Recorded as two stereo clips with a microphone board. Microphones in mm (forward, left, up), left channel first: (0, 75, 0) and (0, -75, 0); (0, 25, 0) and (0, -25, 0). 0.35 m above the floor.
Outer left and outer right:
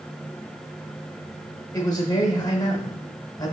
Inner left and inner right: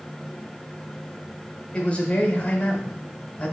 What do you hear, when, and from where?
1.7 s a man speaking: 25° left (ahead or behind), 1.2 m